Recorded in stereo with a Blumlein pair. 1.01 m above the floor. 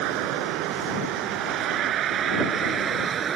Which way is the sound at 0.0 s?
40° right.